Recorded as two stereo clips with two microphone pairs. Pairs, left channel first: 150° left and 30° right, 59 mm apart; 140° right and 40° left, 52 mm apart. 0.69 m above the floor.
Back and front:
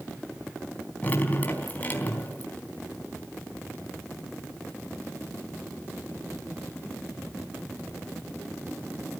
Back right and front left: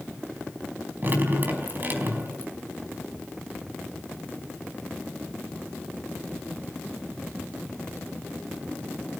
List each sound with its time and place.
1.0 s dripping: 90° left, 4 m